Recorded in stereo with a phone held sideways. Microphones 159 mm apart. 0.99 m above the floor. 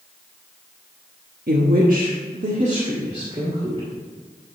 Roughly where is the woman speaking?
Right.